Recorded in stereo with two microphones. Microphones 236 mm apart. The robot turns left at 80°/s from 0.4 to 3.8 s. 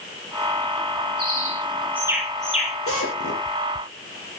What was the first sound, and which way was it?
A bird, 85° right.